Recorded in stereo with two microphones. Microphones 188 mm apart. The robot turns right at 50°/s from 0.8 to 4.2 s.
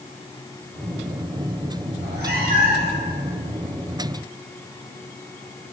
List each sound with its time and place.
1.9 s a cat meowing: 80° right, 1.5 m; by 3.0 s 25° right, 1.5 m